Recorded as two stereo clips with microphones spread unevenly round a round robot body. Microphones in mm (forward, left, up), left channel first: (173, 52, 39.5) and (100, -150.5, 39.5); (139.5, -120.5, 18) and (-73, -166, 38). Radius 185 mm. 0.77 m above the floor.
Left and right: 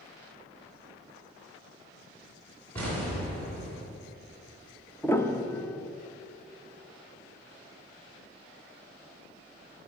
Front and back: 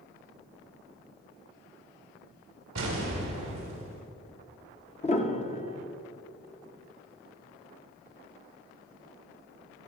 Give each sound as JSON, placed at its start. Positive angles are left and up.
{"t": 2.8, "sound": "an explosion", "azimuth_deg": 155, "distance_m": 2.0}
{"t": 5.0, "sound": "a piano", "azimuth_deg": 0, "distance_m": 1.0}